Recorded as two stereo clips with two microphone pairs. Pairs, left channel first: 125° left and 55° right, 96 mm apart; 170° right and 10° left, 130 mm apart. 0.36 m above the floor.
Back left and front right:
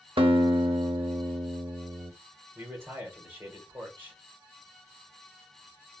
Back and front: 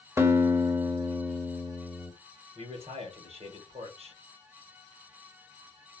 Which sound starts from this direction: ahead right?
A guitar, at 0.2 s.